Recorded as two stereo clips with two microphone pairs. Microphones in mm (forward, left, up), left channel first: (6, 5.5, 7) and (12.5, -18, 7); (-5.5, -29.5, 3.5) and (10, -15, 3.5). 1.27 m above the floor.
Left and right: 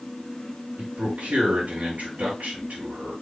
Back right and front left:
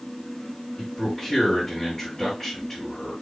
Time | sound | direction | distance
0.8 | a man speaking | 75° right | 4 m